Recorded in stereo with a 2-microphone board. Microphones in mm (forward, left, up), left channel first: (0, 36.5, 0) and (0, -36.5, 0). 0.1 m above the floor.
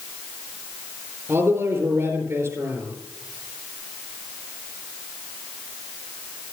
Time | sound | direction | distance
1.3 | a man speaking | 40° right (ahead or behind) | 4 m